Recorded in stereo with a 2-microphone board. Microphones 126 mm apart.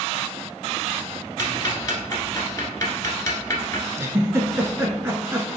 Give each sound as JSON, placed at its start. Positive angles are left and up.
{"t": 1.4, "sound": "ticking", "side_deg": 30, "distance_m": 1.1}
{"t": 4.0, "sound": "a giggle", "side_deg": -20, "distance_m": 0.6}